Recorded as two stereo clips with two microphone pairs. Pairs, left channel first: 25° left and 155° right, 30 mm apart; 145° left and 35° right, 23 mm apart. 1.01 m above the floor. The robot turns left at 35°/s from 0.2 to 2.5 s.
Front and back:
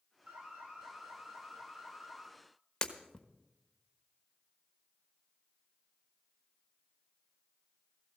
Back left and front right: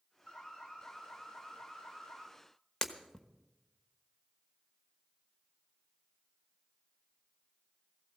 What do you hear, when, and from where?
0.3 s an alarm: 165° right, 3.5 m; by 2.3 s 125° left, 3.5 m
2.8 s breaking glass: 85° left, 1.2 m